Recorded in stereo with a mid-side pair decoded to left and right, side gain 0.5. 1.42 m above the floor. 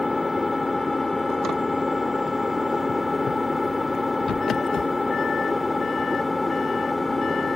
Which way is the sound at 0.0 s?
20° left.